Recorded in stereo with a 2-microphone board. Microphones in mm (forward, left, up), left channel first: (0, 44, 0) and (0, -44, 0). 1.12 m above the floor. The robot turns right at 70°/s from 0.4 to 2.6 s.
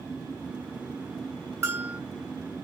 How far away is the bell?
About 1.1 m.